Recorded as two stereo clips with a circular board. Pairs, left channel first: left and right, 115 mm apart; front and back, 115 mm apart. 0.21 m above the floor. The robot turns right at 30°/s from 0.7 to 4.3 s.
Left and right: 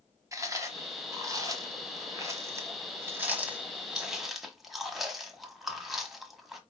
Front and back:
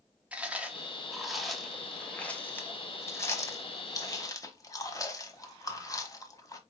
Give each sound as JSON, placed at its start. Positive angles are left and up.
{"t": 0.3, "sound": "chewing", "azimuth_deg": -110, "distance_m": 1.1}